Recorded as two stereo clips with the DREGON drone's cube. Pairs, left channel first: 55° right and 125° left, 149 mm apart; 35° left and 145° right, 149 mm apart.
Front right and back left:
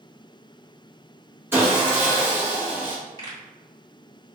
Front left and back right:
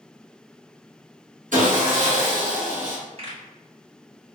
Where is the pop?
110° right, 1.9 m.